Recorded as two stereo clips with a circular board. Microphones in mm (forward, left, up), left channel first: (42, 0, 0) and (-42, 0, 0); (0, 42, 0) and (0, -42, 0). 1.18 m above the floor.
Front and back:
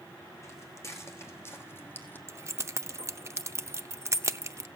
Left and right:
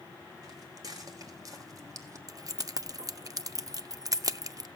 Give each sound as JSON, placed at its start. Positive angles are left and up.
{"t": 0.4, "sound": "footsteps", "azimuth_deg": -50, "distance_m": 3.0}
{"t": 2.3, "sound": "keys jangling", "azimuth_deg": -130, "distance_m": 0.5}